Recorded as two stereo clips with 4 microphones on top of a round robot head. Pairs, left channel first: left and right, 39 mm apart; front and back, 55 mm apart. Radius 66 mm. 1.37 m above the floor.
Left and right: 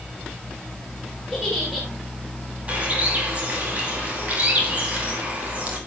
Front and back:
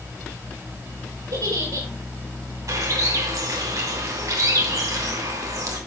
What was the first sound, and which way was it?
A giggle, 170° right.